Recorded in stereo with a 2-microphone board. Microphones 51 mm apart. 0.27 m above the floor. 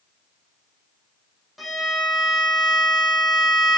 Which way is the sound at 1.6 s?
Centre (ahead or behind).